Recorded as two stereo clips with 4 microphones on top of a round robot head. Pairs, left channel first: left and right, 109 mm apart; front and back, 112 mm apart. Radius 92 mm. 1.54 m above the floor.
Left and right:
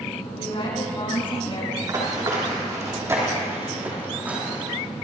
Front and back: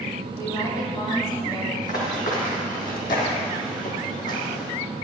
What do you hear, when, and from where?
0.4 s a woman speaking: 55° left, 5.5 m
1.8 s running footsteps: 40° right, 4 m; by 4.6 s 10° right, 3.5 m